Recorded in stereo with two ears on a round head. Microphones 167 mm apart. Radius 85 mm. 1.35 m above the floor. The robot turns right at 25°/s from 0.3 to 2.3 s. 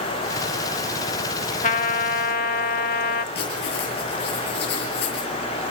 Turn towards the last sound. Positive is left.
turn(degrees=55)  # may be behind; listen again after turning